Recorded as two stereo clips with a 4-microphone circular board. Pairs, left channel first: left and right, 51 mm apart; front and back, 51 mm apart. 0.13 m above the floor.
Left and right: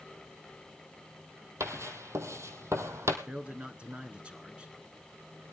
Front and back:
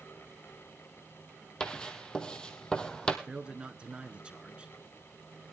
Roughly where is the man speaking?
Behind right.